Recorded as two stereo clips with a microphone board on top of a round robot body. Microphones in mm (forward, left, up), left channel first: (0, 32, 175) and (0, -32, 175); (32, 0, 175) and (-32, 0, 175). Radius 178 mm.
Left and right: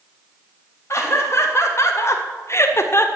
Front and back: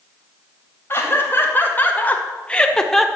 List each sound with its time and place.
0.9 s laughter: 50° left, 3.5 m; by 3.1 s 85° left, 1.7 m